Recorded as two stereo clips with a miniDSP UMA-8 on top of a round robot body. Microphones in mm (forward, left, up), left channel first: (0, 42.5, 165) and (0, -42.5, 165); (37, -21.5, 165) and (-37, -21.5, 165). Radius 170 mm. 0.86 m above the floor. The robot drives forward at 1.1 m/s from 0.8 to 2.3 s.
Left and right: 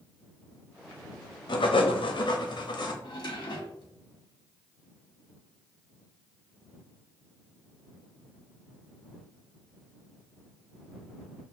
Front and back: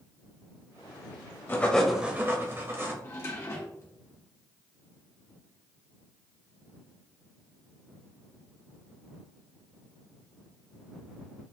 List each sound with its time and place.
1.5 s writing: 60° left, 0.9 m; by 2.9 s 120° left, 0.9 m
3.0 s a drawer: 55° left, 1.2 m